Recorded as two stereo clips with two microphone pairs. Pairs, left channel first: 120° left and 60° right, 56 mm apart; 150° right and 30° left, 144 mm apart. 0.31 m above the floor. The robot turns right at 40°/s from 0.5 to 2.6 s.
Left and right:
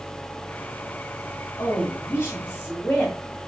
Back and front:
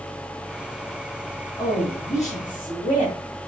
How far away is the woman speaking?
About 3.5 m.